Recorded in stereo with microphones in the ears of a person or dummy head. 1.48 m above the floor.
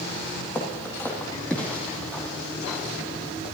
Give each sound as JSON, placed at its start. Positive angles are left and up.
{"t": 0.6, "sound": "footsteps", "side_deg": 10, "distance_m": 2.5}